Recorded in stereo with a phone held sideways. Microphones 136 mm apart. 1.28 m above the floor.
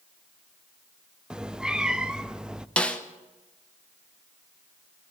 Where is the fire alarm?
No fire alarm in this recording.